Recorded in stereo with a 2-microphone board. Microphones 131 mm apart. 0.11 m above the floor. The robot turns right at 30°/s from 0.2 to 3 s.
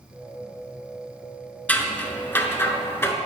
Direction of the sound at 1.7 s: 10° left (ahead or behind).